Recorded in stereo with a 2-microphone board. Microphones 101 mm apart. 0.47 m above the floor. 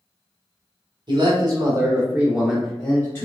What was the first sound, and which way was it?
A man speaking, 45° right (ahead or behind).